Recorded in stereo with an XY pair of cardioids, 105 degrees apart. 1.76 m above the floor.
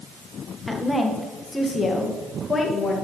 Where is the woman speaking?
5° left, 2.0 m; by 3.0 s 25° left, 3 m.